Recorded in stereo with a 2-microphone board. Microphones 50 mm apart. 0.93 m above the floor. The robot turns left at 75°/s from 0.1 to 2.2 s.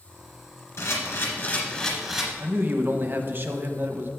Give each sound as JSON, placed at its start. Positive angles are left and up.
{"t": 0.8, "sound": "a camera shutter", "azimuth_deg": 100, "distance_m": 2.0}
{"t": 2.4, "sound": "a man speaking", "side_deg": -45, "distance_m": 0.8}